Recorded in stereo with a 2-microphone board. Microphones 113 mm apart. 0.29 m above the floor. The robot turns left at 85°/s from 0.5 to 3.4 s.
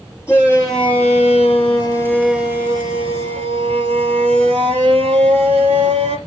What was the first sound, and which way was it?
A shout, 155° left.